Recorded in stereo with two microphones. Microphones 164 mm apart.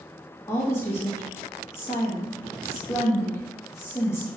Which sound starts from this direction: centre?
A woman speaking, at 0.5 s.